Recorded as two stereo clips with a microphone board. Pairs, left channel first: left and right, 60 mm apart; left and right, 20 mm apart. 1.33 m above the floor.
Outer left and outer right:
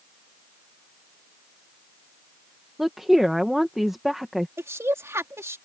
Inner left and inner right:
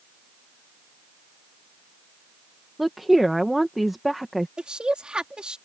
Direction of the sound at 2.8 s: 5° right (ahead or behind).